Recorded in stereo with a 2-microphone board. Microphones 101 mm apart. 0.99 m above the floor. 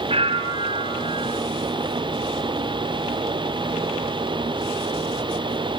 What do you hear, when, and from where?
0.1 s a bell: 80° right, 2.5 m